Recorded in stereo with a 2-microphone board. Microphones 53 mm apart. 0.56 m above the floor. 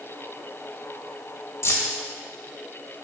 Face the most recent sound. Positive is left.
turn(degrees=65)  # may be behind; listen again after turning